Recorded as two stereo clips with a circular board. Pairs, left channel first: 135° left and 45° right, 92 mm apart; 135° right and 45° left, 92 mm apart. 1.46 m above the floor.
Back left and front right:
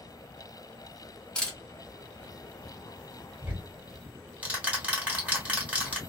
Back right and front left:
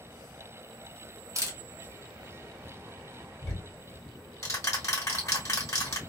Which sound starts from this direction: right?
Ticking, at 3.4 s.